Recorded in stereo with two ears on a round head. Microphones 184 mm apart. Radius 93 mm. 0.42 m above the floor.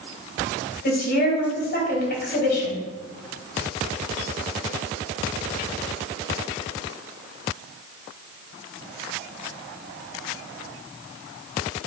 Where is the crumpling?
No crumpling in this recording.